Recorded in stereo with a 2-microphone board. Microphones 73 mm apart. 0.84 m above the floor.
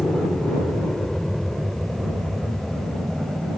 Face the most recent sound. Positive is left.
turn(degrees=-5)  # may be behind; listen again after turning